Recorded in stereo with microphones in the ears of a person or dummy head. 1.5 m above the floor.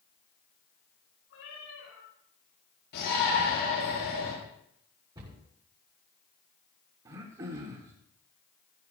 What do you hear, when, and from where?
1.3 s a cat meowing: 75° left (ahead or behind), 7 m
2.9 s a shout: 55° left (ahead or behind), 8 m
5.2 s a cupboard door: 25° right (ahead or behind), 7 m
7.0 s throat clearing: 25° right (ahead or behind), 1.4 m